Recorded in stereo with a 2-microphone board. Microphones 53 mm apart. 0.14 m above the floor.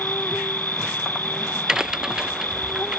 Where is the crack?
15° right (ahead or behind).